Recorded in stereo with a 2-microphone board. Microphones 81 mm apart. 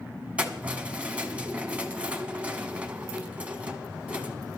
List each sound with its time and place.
0.4 s keys jangling: 15° right (ahead or behind), 1.1 m